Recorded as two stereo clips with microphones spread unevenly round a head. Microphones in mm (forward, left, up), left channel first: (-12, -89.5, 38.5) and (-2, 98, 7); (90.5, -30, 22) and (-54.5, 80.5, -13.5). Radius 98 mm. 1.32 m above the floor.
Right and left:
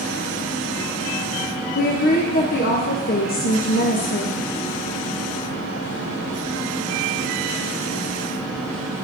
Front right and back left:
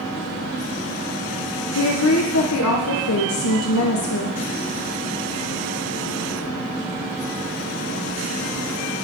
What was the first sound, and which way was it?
A woman speaking, 45° right.